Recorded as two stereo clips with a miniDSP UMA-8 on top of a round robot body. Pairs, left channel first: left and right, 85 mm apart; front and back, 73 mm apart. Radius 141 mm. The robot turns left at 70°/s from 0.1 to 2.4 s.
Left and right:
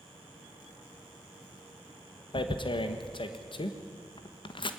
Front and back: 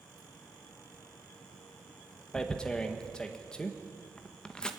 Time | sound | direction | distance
2.3 | tearing paper | 80° left | 1.6 m